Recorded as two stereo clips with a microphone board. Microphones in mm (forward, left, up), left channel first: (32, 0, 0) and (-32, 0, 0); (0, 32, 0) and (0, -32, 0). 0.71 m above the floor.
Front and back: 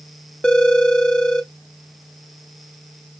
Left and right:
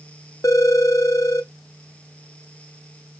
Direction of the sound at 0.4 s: 75° left.